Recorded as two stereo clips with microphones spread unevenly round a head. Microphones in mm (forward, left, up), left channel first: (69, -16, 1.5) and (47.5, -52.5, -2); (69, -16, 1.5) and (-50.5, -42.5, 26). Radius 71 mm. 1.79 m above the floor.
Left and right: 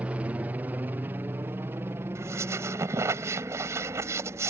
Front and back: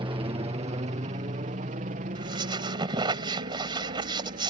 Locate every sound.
0.0 s a helicopter: 140° right; by 4.5 s 165° right
2.1 s a squeak: 115° right